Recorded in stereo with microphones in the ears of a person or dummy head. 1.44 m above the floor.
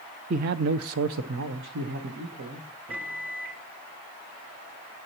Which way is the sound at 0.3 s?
40° right (ahead or behind).